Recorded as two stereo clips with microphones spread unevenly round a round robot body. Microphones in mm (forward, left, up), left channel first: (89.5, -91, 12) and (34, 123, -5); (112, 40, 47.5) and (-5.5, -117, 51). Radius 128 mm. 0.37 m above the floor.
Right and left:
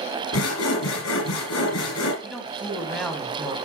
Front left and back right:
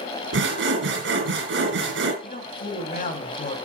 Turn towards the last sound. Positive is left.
turn(degrees=15)